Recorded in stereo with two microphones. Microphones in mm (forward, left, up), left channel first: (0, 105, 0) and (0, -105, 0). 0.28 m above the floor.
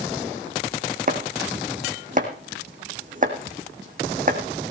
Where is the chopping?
40° right (ahead or behind), 3 m.